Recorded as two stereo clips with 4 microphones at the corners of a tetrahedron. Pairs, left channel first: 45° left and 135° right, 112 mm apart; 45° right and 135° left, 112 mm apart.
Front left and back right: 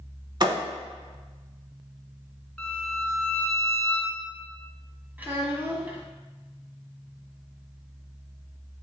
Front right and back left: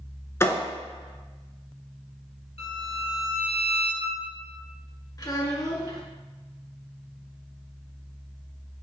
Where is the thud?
100° right, 0.8 m.